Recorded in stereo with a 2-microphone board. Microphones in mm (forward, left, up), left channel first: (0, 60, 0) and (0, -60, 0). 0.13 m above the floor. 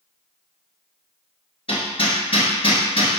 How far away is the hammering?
About 1.5 m.